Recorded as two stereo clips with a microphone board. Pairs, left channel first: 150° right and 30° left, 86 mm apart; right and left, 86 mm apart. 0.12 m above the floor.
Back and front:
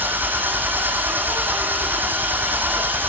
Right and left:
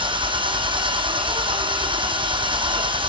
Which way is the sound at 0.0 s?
100° left.